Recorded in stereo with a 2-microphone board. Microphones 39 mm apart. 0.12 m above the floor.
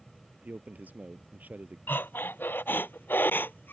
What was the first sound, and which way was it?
A man speaking, 45° right (ahead or behind).